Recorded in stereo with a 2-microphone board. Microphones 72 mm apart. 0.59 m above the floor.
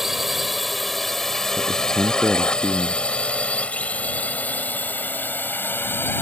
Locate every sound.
0.0 s a drone: 5° right (ahead or behind); by 6.2 s 30° left (ahead or behind)
1.6 s a man speaking: 10° left (ahead or behind)